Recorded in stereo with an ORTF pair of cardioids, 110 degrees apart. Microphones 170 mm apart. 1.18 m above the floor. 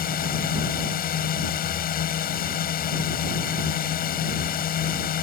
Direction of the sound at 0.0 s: 60° left.